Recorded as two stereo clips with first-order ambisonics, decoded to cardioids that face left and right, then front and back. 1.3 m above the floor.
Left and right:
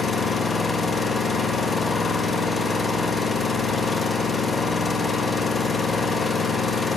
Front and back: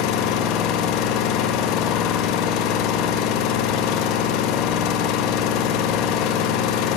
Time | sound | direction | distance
0.0 | an engine running | 15° left | 1.0 m